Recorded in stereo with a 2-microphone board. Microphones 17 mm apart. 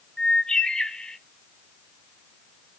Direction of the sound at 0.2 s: 75° left (ahead or behind).